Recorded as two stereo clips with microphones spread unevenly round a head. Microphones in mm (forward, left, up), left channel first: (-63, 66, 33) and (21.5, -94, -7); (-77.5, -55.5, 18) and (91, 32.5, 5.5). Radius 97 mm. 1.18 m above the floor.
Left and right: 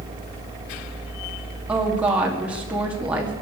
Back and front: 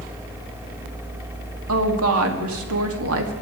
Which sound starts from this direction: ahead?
A woman speaking, at 1.7 s.